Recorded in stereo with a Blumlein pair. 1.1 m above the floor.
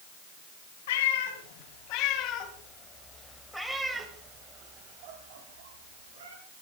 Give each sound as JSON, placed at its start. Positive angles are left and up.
{"t": 0.9, "sound": "a cat meowing", "azimuth_deg": 55, "distance_m": 3.0}